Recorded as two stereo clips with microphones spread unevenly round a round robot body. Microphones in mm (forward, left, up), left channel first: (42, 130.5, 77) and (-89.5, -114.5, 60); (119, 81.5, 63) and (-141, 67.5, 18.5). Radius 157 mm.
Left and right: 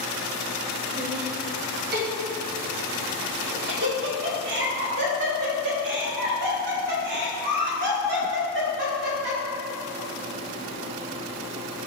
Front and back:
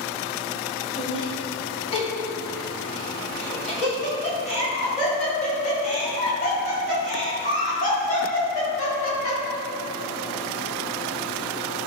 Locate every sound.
1.0 s laughter: 70° right, 1.6 m; by 9.4 s 65° right, 6 m